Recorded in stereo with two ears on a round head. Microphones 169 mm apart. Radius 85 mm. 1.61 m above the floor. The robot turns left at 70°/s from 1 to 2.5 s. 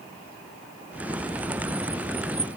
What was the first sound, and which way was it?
Only background noise.